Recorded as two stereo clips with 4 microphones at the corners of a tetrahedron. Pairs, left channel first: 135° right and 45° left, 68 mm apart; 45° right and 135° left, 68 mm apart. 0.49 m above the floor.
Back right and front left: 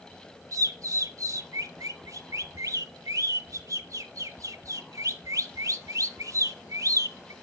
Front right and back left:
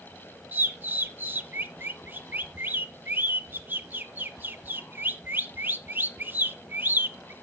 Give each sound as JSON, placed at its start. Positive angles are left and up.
{"t": 0.5, "sound": "a bird", "azimuth_deg": 80, "distance_m": 0.6}